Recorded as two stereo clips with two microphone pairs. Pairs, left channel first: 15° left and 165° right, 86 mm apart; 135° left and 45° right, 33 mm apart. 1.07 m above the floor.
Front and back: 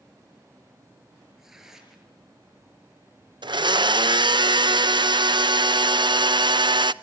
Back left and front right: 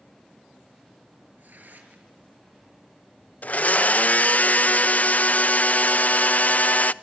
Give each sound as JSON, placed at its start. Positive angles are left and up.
{"t": 1.4, "sound": "tearing paper", "azimuth_deg": -80, "distance_m": 6.0}
{"t": 3.4, "sound": "a blender", "azimuth_deg": 170, "distance_m": 0.5}